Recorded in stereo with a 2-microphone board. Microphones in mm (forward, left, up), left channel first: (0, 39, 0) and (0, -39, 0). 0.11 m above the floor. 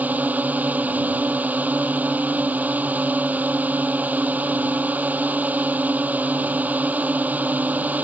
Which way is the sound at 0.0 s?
20° right (ahead or behind).